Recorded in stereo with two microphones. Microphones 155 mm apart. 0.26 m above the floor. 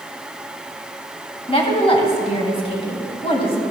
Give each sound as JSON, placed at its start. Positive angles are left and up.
{"t": 1.5, "sound": "a woman speaking", "side_deg": 35, "distance_m": 2.0}